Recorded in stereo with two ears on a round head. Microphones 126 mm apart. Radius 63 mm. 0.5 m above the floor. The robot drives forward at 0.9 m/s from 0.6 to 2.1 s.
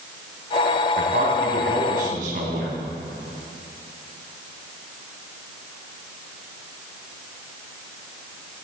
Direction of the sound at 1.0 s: 75° right (ahead or behind).